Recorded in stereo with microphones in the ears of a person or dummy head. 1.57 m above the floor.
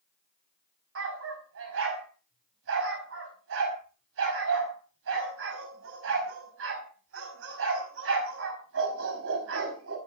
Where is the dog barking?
75° right (ahead or behind), 5 m.